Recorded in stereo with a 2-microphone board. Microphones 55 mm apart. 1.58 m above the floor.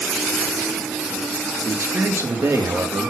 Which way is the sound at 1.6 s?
60° right (ahead or behind).